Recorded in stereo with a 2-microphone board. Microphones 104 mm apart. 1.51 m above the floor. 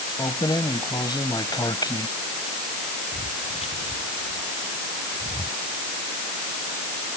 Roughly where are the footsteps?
Left.